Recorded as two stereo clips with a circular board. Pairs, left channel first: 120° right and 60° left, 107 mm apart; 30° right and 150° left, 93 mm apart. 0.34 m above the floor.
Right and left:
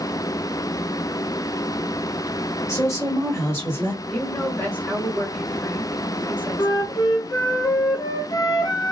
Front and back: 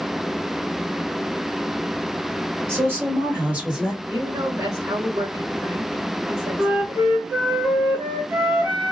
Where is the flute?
155° right, 0.8 m.